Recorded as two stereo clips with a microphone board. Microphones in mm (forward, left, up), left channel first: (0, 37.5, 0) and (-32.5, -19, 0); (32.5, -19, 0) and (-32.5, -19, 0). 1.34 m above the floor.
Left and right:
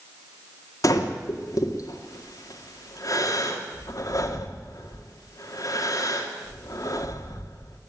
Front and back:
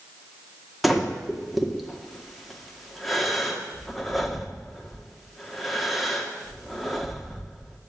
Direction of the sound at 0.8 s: 90° left.